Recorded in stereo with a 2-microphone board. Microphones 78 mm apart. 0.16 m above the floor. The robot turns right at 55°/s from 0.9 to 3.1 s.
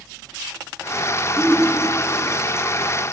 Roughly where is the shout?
Behind right.